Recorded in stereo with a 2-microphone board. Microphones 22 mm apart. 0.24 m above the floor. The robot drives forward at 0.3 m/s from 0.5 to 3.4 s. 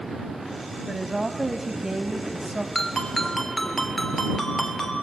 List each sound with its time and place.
0.9 s a woman speaking: 25° right (ahead or behind), 1.2 m
2.8 s a ringtone: 15° left (ahead or behind), 2 m